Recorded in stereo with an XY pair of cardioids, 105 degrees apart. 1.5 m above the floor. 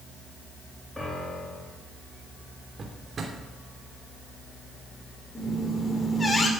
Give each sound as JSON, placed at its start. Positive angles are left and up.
{"t": 1.0, "sound": "a piano", "azimuth_deg": 5, "distance_m": 3.5}
{"t": 2.8, "sound": "a drawer", "azimuth_deg": -45, "distance_m": 3.0}
{"t": 5.3, "sound": "a squeak", "azimuth_deg": 20, "distance_m": 2.5}